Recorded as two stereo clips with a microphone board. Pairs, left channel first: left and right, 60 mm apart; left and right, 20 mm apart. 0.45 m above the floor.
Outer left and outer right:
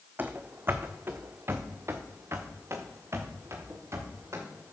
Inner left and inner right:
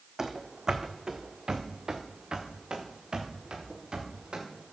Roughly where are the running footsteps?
Right.